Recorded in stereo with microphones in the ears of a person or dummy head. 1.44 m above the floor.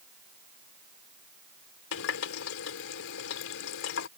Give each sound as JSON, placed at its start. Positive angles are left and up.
{"t": 1.9, "sound": "a running tap", "side_deg": 80}